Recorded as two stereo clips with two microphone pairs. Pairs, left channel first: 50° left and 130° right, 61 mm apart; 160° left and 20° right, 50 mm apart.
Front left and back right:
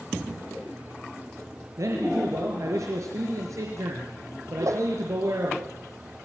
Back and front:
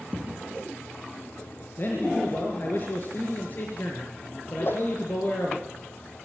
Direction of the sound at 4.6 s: 160° right.